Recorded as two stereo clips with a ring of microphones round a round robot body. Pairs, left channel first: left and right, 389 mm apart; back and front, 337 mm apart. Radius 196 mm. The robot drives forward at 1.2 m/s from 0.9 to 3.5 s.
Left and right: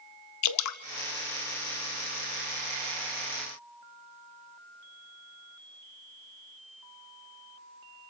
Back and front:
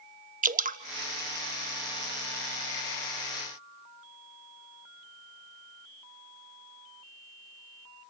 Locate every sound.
0.4 s dripping: 60° left, 0.8 m